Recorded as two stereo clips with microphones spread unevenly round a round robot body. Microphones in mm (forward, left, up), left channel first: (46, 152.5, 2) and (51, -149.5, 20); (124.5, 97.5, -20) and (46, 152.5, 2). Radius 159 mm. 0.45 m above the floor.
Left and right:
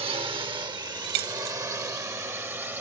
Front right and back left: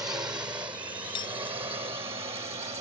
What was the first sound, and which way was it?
A drone, 160° right.